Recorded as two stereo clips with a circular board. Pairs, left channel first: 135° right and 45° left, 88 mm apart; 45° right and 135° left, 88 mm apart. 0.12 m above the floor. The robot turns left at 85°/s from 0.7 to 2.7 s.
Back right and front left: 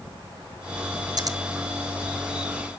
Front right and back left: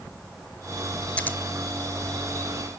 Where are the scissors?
25° left, 0.9 m; by 1.4 s 10° left, 0.9 m.